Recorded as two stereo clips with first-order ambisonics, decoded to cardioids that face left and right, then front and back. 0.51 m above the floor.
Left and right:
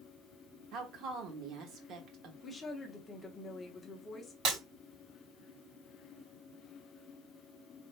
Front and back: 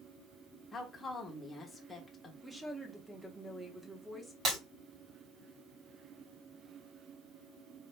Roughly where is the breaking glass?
Behind right.